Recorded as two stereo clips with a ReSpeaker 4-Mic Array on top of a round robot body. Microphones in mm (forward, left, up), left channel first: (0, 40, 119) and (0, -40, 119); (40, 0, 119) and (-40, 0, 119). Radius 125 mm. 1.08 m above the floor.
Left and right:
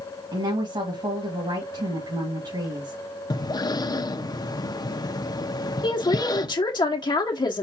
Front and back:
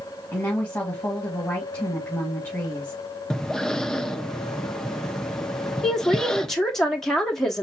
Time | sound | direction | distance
0.3 | a woman speaking | 70° right | 2 m
3.3 | breathing | 80° left | 0.8 m
5.8 | a woman speaking | 85° left | 1.0 m